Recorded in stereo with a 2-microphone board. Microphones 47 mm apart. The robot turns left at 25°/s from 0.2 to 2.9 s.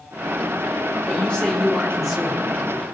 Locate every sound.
1.1 s a man speaking: 25° left, 3 m; by 2.6 s 10° right, 3 m